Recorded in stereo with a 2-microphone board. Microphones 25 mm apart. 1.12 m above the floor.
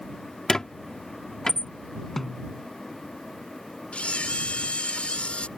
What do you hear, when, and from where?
0.5 s a squeak: 25° left (ahead or behind)
2.2 s a snare drum: 15° left (ahead or behind)
3.9 s a camera shutter: 50° left (ahead or behind)